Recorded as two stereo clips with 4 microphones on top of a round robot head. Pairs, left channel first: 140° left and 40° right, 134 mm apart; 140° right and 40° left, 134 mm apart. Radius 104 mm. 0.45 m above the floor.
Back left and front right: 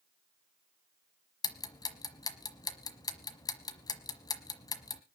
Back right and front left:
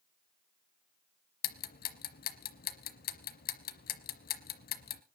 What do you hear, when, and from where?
1.4 s ticking: 155° right, 1.1 m